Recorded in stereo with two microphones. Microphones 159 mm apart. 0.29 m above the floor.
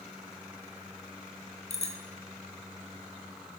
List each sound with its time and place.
1.7 s a bicycle bell: 45° left (ahead or behind), 3.5 m